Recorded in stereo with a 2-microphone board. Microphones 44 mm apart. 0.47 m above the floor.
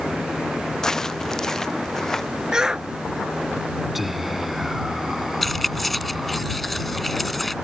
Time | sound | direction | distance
0.8 | footsteps | 15° left (ahead or behind) | ?
2.5 | a shout | 15° right (ahead or behind) | ?
4.0 | whispering | 5° right (ahead or behind) | ?
5.4 | keys jangling | 5° left (ahead or behind) | ?